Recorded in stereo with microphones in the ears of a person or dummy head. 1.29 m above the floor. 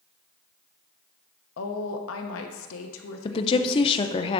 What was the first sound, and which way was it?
A woman speaking, 80° left.